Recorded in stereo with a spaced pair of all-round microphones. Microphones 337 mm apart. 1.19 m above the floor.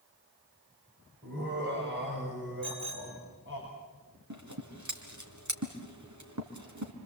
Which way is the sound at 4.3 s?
55° right (ahead or behind).